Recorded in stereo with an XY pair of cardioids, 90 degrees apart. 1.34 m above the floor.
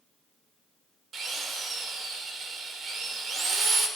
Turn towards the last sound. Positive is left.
turn(degrees=-55)